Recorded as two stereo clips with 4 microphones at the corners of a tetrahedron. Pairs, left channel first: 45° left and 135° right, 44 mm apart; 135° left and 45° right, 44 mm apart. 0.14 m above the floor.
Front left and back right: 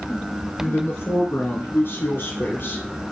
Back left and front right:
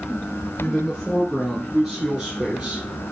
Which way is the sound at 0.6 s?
65° left.